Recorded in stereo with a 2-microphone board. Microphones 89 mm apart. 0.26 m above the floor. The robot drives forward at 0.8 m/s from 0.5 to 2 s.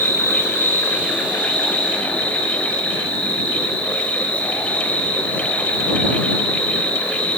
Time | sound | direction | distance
0.0 | an insect | 30° left (ahead or behind) | 1.2 m